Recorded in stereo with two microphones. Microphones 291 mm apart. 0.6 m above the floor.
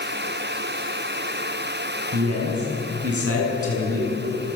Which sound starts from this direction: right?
A man speaking, at 2.1 s.